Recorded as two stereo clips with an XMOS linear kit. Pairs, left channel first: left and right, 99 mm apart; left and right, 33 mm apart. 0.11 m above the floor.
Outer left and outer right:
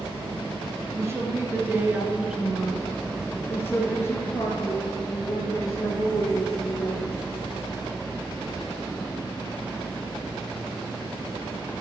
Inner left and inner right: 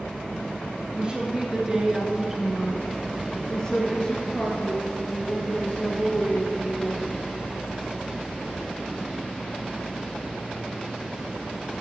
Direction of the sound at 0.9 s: 30° right (ahead or behind).